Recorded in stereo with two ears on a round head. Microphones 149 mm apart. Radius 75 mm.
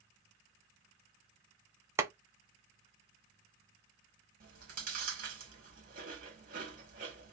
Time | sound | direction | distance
2.0 | boiling | 15° right (ahead or behind) | 0.6 m
4.4 | chewing | 55° right (ahead or behind) | 1.9 m